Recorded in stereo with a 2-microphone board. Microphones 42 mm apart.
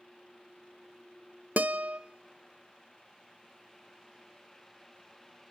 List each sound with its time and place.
1.6 s a guitar: 40° right (ahead or behind), 0.6 m